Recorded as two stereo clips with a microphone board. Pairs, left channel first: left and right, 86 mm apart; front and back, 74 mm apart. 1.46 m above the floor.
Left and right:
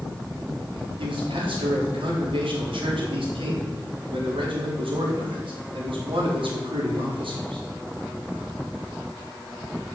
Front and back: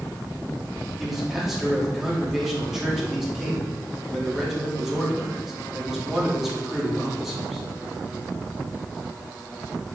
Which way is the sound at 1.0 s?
95° right.